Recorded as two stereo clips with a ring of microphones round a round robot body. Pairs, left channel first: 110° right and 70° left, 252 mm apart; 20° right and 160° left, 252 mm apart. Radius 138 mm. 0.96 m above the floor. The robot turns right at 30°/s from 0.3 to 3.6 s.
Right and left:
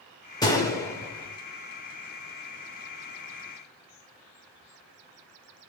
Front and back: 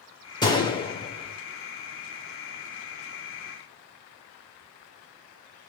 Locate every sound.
0.4 s a gunshot: 65° right, 0.6 m; by 1.4 s 40° right, 0.6 m